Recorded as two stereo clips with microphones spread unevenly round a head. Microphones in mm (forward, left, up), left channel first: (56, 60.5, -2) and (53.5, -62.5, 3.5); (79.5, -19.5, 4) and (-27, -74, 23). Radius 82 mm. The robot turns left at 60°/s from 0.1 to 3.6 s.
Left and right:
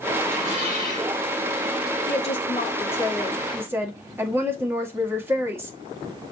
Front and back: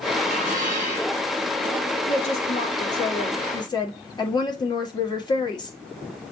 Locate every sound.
0.2 s dishes clattering: 165° right, 4.5 m; by 1.2 s 135° left, 4.5 m
2.1 s a woman speaking: 70° left, 1.8 m; by 5.8 s 20° right, 1.8 m